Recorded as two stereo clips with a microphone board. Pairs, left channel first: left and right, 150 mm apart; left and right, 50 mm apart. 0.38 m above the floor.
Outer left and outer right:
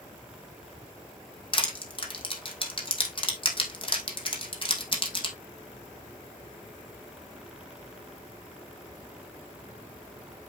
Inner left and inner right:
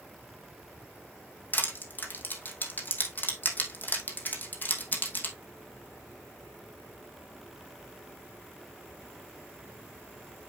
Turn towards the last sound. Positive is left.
turn(degrees=35)  # may be behind; listen again after turning